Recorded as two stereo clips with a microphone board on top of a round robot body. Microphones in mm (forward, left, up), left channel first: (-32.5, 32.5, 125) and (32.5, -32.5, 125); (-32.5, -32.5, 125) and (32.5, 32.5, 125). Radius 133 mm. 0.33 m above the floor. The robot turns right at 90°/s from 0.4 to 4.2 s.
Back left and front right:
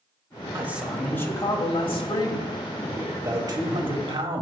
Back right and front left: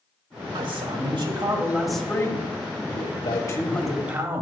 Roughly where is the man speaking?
Ahead.